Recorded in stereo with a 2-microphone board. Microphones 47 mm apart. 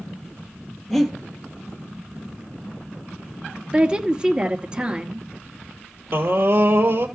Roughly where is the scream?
Right.